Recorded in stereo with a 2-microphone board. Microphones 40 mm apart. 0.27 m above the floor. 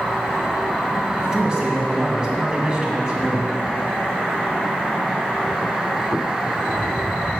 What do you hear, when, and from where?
1.2 s a man speaking: 20° right (ahead or behind), 2 m